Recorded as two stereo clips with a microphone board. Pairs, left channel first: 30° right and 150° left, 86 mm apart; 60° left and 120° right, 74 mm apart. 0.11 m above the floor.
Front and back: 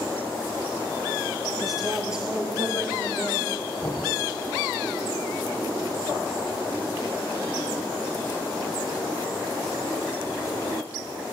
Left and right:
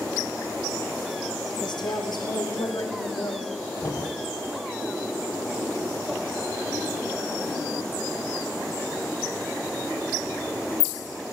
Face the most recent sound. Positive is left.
turn(degrees=40)